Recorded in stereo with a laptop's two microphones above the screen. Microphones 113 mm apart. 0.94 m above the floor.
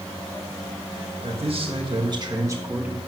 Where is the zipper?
I don't hear a zipper.